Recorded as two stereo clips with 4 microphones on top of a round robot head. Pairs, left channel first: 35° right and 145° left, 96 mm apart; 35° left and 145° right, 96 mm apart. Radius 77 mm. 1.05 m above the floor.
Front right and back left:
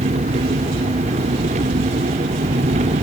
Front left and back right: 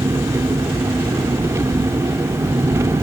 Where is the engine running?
150° left, 1.3 m.